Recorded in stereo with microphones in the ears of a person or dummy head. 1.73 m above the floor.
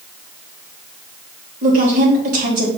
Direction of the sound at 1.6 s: 50° right (ahead or behind).